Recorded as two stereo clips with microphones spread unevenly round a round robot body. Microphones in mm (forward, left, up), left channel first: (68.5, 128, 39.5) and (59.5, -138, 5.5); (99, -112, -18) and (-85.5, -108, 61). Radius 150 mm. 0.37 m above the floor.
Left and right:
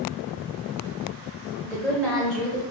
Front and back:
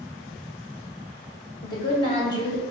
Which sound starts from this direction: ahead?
A woman speaking, at 1.6 s.